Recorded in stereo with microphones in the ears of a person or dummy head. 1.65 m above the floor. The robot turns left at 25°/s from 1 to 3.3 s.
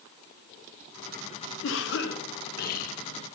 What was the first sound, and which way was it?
A cough, 90° left.